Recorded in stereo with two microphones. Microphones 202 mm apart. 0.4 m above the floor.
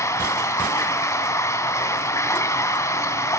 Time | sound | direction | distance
0.0 | running water | 15° left (ahead or behind) | 1.4 m